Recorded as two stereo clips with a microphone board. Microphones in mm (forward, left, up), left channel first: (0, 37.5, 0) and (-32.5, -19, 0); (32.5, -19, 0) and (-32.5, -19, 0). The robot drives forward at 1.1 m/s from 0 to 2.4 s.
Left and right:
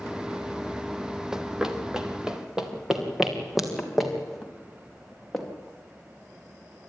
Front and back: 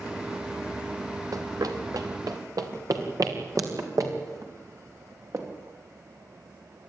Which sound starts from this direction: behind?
Running footsteps, at 1.3 s.